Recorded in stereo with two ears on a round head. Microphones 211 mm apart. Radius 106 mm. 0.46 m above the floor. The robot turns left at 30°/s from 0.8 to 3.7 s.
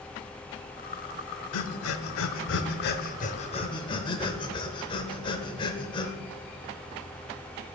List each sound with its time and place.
1.5 s breathing: 75° left (ahead or behind), 0.6 m; by 6.1 s 20° left (ahead or behind), 0.6 m